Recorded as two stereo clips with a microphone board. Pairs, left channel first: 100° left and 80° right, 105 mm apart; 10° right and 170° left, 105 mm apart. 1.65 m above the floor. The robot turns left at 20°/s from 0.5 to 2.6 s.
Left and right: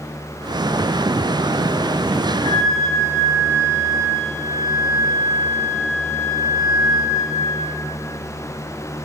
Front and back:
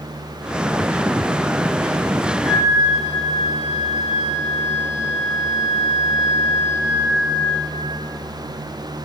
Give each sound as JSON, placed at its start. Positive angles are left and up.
{"t": 2.4, "sound": "a flute", "azimuth_deg": 95, "distance_m": 4.5}